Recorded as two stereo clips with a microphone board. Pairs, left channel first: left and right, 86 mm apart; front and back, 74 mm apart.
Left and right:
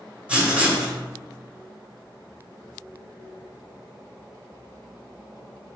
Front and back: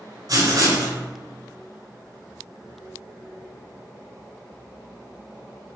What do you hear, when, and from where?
0.3 s writing: 165° right, 1.2 m